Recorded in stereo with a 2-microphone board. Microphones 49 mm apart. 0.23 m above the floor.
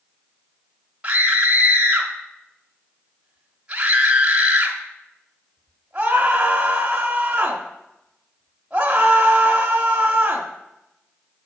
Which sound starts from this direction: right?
A scream, at 1.0 s.